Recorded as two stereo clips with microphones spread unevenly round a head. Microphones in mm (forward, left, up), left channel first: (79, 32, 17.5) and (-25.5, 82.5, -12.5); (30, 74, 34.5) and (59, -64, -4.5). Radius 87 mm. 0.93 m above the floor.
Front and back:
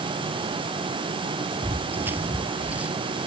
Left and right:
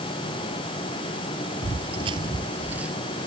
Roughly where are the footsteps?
Behind right.